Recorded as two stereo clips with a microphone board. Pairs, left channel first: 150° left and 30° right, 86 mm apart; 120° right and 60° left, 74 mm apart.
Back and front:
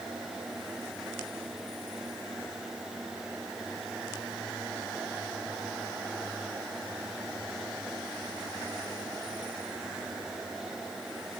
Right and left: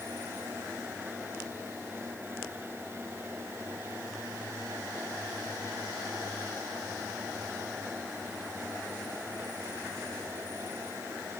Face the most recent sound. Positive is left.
No sound to turn to.